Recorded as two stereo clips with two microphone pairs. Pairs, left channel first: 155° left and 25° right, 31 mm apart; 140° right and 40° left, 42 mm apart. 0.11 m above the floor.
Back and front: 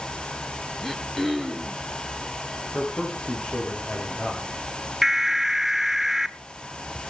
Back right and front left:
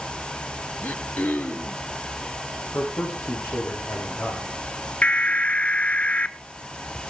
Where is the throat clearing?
125° right, 1.9 m.